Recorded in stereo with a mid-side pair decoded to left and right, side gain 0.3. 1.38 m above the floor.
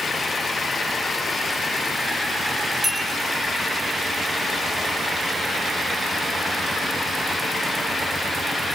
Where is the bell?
30° right, 7.5 m.